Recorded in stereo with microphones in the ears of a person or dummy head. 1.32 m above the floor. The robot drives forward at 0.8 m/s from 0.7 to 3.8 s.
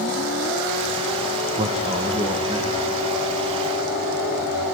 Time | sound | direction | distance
1.6 | a man speaking | 30° right (ahead or behind) | 1.7 m